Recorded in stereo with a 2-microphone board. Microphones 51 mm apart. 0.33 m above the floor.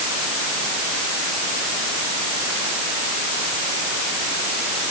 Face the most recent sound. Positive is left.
No sound to turn to.